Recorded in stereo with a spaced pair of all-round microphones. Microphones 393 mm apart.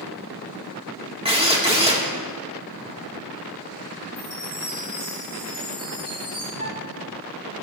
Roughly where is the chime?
Centre.